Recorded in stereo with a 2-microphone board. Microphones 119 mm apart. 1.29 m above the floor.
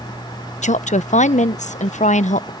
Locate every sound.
0.6 s a woman speaking: 80° left